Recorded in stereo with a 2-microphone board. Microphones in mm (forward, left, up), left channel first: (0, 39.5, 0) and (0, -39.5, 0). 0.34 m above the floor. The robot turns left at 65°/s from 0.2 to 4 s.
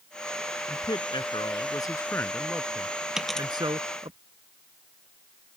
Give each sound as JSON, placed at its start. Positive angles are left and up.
{"t": 0.7, "sound": "a man speaking", "azimuth_deg": 125}
{"t": 3.2, "sound": "a dropped coin", "side_deg": -10}